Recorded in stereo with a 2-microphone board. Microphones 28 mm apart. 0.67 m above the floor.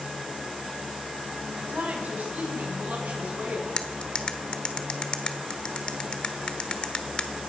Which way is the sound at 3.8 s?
40° left (ahead or behind).